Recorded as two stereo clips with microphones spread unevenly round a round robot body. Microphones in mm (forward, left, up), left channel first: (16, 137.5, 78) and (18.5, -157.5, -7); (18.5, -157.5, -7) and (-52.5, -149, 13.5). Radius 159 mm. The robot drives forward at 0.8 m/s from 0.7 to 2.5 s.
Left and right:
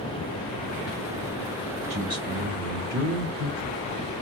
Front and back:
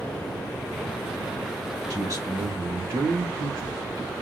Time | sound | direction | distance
1.9 | a man speaking | 145° right | 3.5 m